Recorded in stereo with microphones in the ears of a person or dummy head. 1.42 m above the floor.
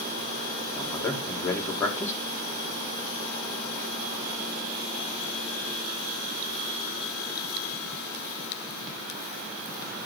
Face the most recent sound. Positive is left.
turn(degrees=15)  # may be behind; listen again after turning